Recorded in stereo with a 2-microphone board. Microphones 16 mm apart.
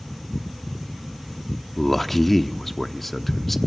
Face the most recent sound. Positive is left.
turn(degrees=15)  # may be behind; listen again after turning